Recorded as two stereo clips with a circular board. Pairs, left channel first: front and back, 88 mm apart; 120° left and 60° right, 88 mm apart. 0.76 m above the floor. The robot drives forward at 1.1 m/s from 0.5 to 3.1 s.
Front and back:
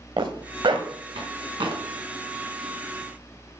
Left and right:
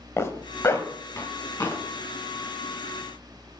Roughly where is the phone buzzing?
No phone buzzing in this recording.